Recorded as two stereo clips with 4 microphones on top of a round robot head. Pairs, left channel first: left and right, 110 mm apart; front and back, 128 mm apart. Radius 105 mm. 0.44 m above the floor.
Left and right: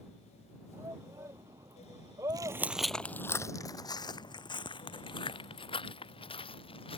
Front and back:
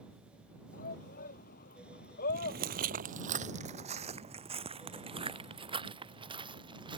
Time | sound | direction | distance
0.7 | a shout | 15° right | ?
2.3 | footsteps | 135° right | ?